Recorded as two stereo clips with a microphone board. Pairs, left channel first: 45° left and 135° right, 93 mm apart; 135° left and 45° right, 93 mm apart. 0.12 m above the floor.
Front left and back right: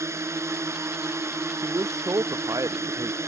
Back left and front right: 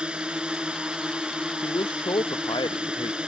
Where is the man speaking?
170° left.